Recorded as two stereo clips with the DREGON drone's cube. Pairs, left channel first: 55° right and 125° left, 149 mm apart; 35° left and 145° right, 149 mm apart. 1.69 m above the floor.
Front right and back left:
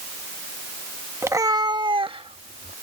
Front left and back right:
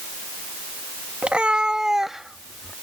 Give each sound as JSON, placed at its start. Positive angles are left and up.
{"t": 1.2, "sound": "a cat meowing", "azimuth_deg": 145}